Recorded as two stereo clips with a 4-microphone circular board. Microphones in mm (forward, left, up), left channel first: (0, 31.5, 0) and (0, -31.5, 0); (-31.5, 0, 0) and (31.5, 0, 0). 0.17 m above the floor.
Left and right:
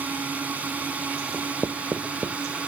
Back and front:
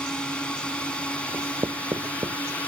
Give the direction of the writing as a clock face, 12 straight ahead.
12 o'clock.